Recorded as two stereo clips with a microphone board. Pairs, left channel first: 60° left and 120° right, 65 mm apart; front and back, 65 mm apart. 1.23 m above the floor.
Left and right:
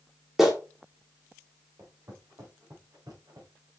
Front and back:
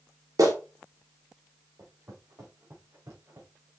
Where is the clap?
155° left, 2.5 m.